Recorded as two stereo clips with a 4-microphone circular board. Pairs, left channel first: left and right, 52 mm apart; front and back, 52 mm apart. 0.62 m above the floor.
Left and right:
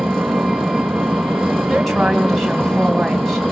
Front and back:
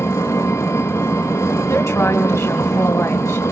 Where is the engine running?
Straight ahead, 5.5 m.